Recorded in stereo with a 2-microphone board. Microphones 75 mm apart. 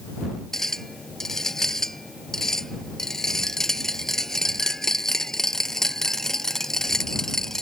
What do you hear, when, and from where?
0.5 s a clink: 5° left (ahead or behind)